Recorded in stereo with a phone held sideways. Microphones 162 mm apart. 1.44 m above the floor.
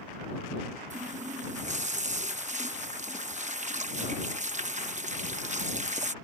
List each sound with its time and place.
0.9 s a running tap: 45° right (ahead or behind)